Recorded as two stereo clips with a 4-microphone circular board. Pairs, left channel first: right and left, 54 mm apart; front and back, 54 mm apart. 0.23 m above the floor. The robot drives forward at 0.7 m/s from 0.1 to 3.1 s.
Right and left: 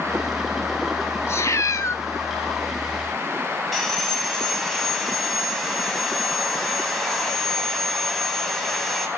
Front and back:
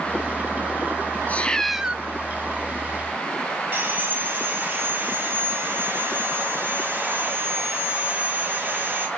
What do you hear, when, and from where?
1.3 s a cat meowing: 60° right, 0.6 m; by 2.0 s 115° right, 0.5 m
3.7 s sawing: 170° right, 1.8 m